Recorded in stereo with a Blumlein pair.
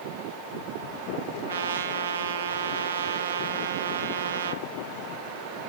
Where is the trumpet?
65° right, 0.6 m.